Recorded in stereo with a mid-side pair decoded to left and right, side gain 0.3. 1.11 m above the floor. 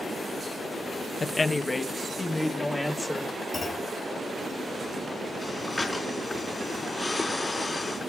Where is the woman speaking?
45° left, 0.6 m; by 3.3 s 25° left, 2.5 m.